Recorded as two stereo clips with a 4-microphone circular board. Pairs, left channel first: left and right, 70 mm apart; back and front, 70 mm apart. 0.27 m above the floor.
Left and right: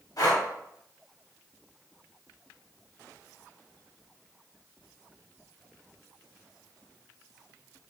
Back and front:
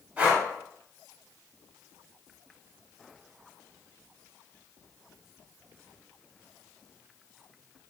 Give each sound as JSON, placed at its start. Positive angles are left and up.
{"t": 0.2, "sound": "breathing", "azimuth_deg": 65, "distance_m": 0.8}